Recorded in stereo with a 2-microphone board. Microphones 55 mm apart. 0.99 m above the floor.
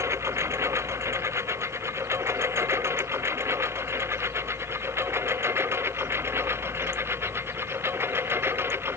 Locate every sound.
0.0 s a lawn mower: 55° right (ahead or behind); by 9.0 s 45° right (ahead or behind)